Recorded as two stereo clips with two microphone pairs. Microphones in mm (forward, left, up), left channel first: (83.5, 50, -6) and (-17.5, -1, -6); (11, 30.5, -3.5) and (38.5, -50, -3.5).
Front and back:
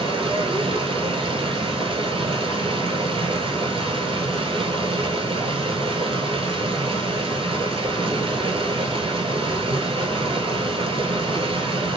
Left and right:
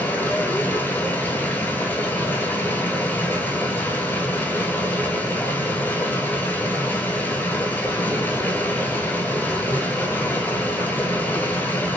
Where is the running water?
175° left, 0.9 m.